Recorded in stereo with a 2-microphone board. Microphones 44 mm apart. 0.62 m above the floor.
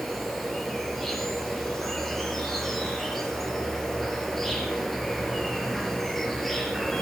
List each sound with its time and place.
0.0 s an insect: centre (ahead or behind), 5 m